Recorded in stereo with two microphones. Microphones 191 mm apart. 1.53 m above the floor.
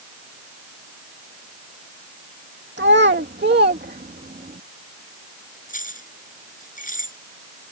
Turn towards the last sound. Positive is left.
turn(degrees=45)  # may be behind; listen again after turning